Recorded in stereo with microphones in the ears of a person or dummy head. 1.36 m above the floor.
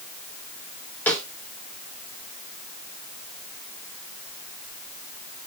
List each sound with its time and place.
1.1 s a snare drum: 5° left (ahead or behind), 1.7 m